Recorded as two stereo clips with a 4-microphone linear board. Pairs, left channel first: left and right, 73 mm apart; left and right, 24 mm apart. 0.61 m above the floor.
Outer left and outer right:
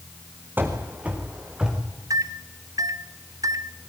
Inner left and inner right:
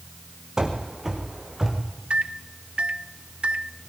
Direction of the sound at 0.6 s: 25° right (ahead or behind).